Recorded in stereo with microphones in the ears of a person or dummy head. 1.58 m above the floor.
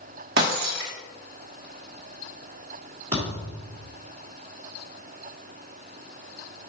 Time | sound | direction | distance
0.4 | breaking glass | 50° right (ahead or behind) | 1.1 m
3.1 | a thud | 20° right (ahead or behind) | 1.8 m